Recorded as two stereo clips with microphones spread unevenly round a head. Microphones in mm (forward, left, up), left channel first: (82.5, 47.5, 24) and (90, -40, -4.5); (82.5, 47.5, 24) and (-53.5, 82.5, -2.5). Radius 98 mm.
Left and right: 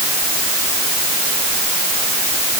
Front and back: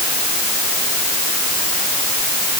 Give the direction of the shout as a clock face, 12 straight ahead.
No shout in this recording.